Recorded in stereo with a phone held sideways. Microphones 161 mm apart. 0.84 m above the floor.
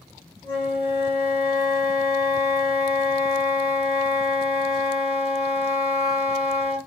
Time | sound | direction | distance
0.4 | a flute | 30° left (ahead or behind) | 1.8 m